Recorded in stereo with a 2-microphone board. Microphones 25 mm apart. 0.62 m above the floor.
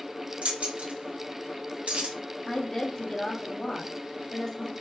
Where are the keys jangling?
80° right, 1.6 m.